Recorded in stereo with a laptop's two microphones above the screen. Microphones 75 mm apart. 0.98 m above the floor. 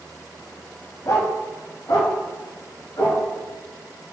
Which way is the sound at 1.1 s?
55° left (ahead or behind).